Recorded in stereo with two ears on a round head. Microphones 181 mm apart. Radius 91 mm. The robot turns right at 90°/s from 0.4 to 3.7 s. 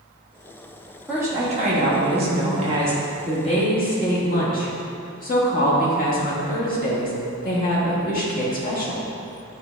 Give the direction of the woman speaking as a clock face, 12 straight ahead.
6 o'clock.